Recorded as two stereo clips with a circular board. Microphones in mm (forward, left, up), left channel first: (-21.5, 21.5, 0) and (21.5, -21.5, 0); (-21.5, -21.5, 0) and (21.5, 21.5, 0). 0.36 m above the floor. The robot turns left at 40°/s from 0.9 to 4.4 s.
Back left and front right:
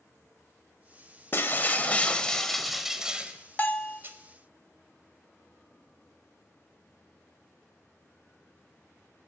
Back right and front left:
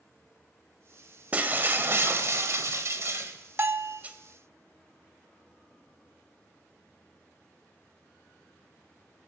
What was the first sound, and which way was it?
Breaking glass, 100° left.